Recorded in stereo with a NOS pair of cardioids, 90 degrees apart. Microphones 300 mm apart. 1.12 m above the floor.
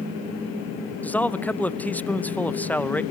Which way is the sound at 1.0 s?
5° left.